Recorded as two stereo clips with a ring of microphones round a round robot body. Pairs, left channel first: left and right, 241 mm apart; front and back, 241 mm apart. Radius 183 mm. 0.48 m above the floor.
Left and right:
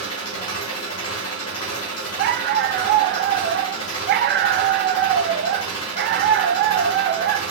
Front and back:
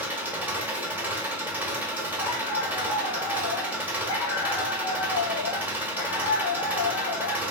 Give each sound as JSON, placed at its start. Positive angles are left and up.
{"t": 0.0, "sound": "an engine running", "azimuth_deg": 95, "distance_m": 1.1}
{"t": 2.2, "sound": "a dog barking", "azimuth_deg": -35, "distance_m": 0.5}